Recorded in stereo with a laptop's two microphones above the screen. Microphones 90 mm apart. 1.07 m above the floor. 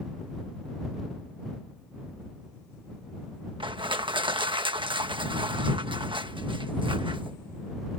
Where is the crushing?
70° right (ahead or behind).